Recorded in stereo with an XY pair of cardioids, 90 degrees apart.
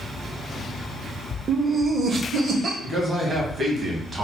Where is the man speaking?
55° right, 1.8 m.